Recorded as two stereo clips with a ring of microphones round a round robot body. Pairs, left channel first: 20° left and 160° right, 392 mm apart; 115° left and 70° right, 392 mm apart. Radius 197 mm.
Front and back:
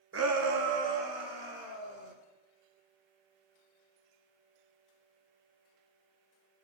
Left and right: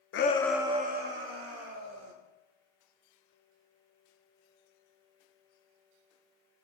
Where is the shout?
155° left, 0.8 m; by 2.1 s 120° right, 2.5 m.